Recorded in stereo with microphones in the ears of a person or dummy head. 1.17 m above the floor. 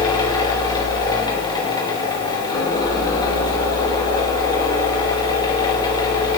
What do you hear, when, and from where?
0.0 s a fan: 25° left (ahead or behind), 3.5 m